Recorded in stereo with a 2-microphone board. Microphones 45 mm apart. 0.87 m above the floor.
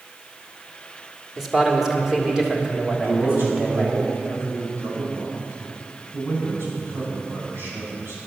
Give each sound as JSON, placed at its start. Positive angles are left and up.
{"t": 1.4, "sound": "a man speaking", "side_deg": -5, "distance_m": 1.9}
{"t": 2.9, "sound": "a man speaking", "side_deg": -55, "distance_m": 6.5}